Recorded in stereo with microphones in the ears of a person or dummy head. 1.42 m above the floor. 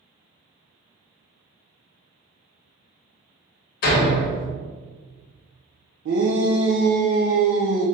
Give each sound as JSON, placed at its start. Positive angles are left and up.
{"t": 3.8, "sound": "a door slam", "side_deg": 50, "distance_m": 0.9}
{"t": 6.0, "sound": "a shout", "side_deg": -80, "distance_m": 0.7}